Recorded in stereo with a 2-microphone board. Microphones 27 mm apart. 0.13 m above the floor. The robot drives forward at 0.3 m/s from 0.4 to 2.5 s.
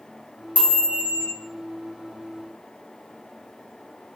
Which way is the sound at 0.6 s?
70° right (ahead or behind).